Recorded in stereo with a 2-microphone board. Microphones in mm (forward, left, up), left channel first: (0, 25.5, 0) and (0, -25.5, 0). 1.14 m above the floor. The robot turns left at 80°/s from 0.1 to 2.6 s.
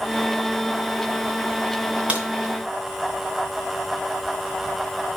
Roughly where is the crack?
Right.